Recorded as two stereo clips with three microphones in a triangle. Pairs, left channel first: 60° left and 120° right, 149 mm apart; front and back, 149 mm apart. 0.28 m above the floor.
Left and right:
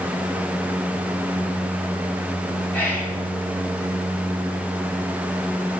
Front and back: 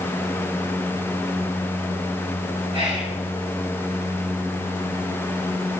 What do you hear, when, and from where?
2.7 s whispering: 135° left, 3.5 m